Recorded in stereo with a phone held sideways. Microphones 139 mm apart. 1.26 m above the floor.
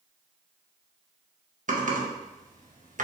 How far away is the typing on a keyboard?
About 0.9 m.